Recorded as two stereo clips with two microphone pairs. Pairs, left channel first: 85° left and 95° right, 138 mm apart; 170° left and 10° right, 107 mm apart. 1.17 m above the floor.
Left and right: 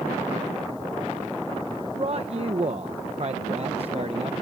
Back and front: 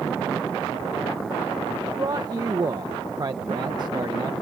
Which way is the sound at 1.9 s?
60° right.